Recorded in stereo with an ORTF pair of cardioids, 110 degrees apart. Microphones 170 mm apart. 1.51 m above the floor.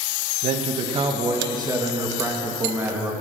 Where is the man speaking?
40° right, 2 m; by 3.1 s 10° right, 3 m.